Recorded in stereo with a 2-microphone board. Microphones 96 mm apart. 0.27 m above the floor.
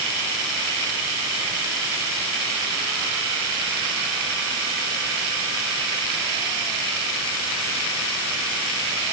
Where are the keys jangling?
No keys jangling in this recording.